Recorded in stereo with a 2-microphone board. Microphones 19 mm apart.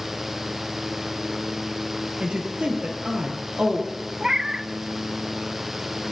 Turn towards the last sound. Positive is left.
turn(degrees=-35)  # may be behind; listen again after turning